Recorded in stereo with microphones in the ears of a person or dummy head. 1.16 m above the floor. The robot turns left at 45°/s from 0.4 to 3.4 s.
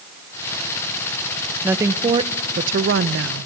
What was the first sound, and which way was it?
A woman speaking, 10° right.